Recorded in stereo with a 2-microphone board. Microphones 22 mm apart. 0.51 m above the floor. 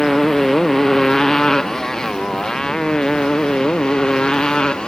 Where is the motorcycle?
20° left (ahead or behind); by 4.9 s 35° left (ahead or behind).